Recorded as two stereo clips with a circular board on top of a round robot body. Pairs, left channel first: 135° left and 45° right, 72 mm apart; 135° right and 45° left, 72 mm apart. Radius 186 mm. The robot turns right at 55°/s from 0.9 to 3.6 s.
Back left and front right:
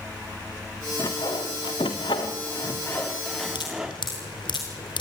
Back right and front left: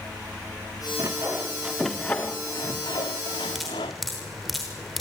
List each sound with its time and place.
1.0 s sawing: 90° left, 0.6 m; by 3.9 s 125° right, 0.6 m
3.5 s dripping: 130° left, 0.8 m; by 5.0 s 135° left, 0.8 m